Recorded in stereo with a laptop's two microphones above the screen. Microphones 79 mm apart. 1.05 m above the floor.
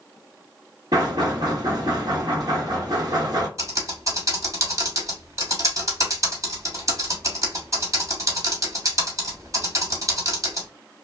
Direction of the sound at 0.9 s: 55° right (ahead or behind).